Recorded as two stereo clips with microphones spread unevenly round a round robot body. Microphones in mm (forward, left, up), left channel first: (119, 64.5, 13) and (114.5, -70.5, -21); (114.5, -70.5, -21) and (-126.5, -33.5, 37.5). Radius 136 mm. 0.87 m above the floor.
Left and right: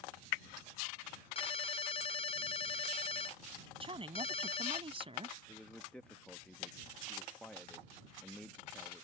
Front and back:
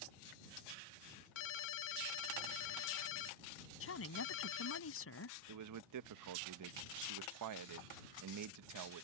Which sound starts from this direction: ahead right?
A woman speaking, at 3.8 s.